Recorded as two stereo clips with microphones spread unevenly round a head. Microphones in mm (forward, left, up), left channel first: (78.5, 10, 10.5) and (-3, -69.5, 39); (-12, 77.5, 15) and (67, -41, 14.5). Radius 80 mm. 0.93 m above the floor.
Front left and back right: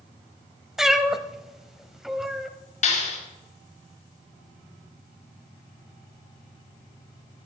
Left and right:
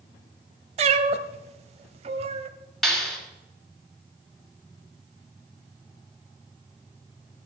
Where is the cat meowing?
70° right, 0.9 m.